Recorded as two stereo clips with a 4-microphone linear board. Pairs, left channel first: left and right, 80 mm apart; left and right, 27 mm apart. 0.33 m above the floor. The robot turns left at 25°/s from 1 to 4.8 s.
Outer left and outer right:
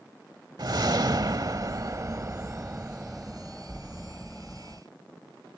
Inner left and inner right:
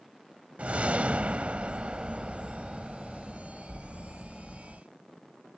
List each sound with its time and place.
0.6 s a whoosh: 105° right; by 4.8 s 160° left